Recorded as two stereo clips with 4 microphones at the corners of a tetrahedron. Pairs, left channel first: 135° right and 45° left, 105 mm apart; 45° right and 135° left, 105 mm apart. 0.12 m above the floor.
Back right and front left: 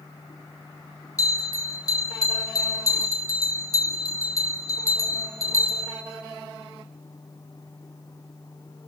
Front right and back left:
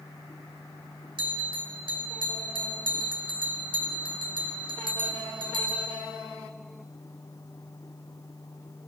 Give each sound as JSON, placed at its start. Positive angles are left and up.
{"t": 1.2, "sound": "a bell", "azimuth_deg": 170, "distance_m": 0.8}